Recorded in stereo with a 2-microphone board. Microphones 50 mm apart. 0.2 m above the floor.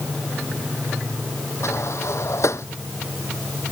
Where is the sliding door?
80° left.